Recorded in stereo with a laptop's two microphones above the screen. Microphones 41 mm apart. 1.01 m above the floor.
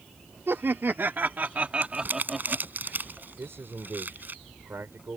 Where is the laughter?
70° right (ahead or behind); by 2.7 s centre (ahead or behind).